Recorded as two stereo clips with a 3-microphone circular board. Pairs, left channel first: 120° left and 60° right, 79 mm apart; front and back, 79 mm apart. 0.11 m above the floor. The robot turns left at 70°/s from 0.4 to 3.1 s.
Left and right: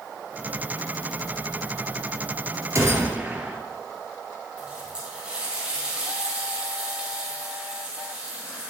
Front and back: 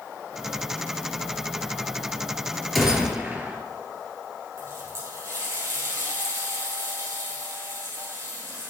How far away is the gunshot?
About 1.2 m.